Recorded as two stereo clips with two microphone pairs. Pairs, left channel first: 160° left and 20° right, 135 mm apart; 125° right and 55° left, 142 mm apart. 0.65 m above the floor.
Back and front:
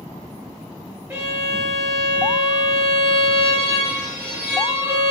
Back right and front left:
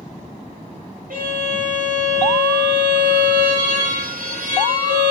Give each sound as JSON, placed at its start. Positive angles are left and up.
{"t": 1.1, "sound": "a violin", "azimuth_deg": 60, "distance_m": 4.0}